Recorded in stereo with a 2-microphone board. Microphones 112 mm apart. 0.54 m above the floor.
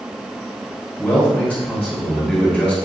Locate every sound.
1.0 s a man speaking: 15° left (ahead or behind), 1.8 m